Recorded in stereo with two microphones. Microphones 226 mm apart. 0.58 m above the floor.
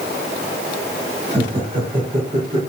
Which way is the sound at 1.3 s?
25° right (ahead or behind).